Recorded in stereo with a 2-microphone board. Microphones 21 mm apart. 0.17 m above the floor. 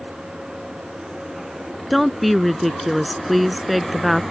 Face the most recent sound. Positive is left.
turn(degrees=-5)  # may be behind; listen again after turning